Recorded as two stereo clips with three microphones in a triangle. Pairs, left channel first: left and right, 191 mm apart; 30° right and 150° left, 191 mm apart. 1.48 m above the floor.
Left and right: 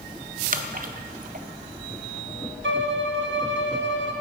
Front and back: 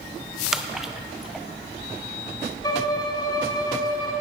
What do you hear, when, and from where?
0.5 s a splash: 120° right, 0.5 m
2.6 s a violin: 100° right, 0.9 m